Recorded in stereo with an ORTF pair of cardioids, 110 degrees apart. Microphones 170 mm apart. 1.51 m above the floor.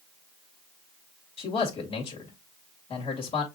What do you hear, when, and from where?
1.4 s a man speaking: 35° left, 2 m